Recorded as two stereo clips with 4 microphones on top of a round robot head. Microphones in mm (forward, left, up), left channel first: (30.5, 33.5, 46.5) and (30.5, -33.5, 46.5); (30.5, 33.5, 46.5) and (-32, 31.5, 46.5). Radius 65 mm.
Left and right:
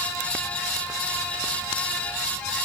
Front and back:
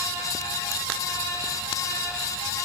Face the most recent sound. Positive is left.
No sound to turn to.